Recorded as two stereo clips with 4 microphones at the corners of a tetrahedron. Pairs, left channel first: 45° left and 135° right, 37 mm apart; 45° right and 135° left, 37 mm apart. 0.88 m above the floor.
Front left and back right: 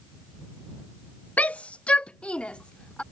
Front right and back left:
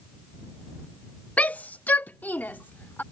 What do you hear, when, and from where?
1.4 s a shout: straight ahead; by 3.0 s 15° right